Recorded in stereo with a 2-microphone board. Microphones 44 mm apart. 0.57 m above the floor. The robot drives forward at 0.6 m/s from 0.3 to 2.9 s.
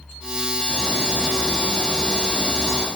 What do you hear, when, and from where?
0.7 s a bird: 65° right (ahead or behind), 4 m; by 2.9 s 50° right (ahead or behind), 4.5 m